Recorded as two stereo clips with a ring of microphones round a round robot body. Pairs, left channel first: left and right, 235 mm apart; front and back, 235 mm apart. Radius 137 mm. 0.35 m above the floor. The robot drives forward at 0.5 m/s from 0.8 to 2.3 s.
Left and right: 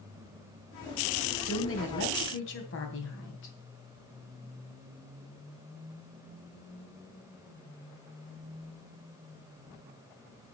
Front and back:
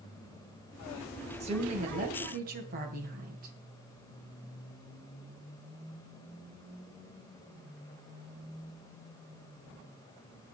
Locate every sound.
1.4 s a woman speaking: 115° left, 2.5 m; by 3.5 s 125° left, 2.5 m